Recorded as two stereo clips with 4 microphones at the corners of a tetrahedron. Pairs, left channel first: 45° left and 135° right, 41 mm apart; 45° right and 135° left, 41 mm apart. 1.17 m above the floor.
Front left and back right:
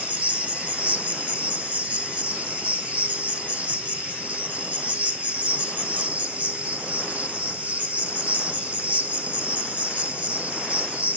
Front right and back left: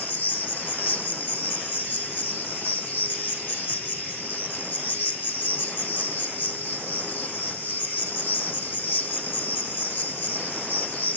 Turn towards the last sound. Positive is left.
turn(degrees=-80)